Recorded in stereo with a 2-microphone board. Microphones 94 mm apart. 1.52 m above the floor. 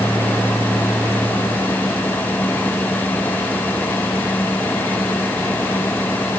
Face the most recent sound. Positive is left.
No sound to turn to.